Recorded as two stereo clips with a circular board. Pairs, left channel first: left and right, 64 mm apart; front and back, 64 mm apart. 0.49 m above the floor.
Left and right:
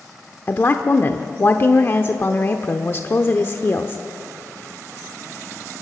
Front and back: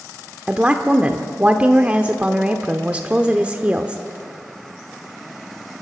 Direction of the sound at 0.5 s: 120° left.